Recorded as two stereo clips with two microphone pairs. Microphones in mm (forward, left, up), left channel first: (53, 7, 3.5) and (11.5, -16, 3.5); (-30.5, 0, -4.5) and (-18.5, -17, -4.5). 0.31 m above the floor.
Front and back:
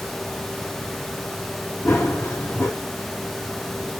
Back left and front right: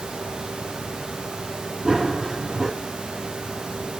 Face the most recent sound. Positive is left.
turn(degrees=25)